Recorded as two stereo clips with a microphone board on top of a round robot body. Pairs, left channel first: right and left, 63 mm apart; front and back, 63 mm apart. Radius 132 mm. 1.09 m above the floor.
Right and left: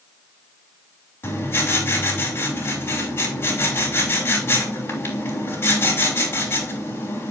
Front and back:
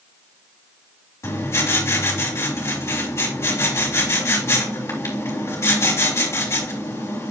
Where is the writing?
40° right, 3 m.